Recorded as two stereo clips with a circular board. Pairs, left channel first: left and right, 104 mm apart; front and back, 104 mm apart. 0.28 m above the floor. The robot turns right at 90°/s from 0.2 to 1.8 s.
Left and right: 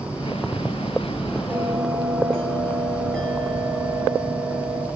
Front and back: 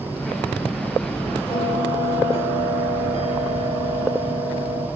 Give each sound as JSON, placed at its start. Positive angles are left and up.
{"t": 1.5, "sound": "a bell", "azimuth_deg": -20, "distance_m": 5.0}